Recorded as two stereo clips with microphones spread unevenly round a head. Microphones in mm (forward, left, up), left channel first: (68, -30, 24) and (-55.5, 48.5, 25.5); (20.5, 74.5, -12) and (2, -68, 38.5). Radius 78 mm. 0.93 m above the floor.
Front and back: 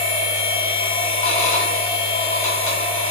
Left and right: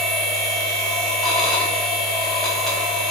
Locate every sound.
0.0 s a machine running: 5° left, 1.0 m